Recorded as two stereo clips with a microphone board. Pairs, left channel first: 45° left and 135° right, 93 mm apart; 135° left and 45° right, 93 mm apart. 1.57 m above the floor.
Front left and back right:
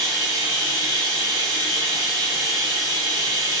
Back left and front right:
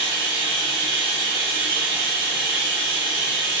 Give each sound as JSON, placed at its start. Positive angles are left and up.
{"t": 0.0, "sound": "running water", "azimuth_deg": -155, "distance_m": 1.7}